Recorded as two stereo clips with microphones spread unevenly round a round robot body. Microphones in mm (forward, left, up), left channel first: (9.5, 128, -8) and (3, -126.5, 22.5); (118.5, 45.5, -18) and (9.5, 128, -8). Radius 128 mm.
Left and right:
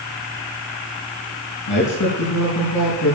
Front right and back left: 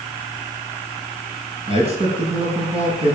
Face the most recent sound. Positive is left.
turn(degrees=100)